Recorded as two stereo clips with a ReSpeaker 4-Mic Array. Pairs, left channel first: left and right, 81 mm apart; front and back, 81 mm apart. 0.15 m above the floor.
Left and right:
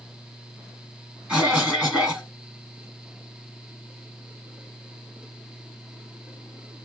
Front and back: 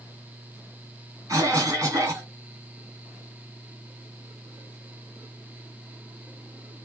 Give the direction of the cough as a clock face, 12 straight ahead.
5 o'clock.